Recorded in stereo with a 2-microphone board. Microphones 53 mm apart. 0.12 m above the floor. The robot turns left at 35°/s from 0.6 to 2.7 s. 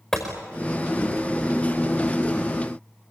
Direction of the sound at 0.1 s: 10° left (ahead or behind).